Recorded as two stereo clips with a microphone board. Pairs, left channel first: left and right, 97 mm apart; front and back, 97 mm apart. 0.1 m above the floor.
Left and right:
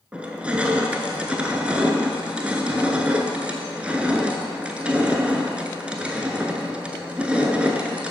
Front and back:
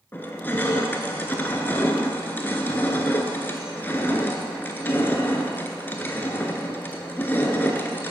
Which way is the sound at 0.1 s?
30° right.